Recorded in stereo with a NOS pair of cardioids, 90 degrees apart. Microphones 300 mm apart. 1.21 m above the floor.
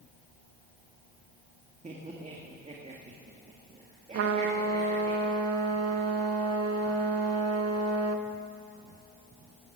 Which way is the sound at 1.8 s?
25° right.